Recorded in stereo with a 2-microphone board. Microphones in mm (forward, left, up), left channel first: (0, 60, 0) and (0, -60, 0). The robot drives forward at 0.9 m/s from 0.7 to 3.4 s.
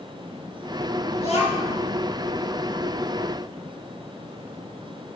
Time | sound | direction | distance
1.2 | a child speaking | 60° left (ahead or behind) | 3 m